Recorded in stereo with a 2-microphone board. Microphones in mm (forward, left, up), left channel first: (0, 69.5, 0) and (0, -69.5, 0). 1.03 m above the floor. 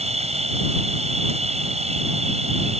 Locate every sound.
0.0 s an insect: 55° right (ahead or behind)